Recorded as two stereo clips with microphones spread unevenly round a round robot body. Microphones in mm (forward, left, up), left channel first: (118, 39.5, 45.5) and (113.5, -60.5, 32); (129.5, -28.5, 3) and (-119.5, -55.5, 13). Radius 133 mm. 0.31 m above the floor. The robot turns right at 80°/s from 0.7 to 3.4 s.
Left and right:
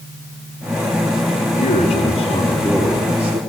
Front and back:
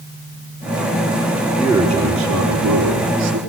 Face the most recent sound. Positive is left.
turn(degrees=-125)